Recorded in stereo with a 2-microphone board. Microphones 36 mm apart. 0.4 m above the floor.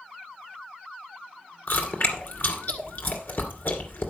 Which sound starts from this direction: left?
Chewing, at 1.7 s.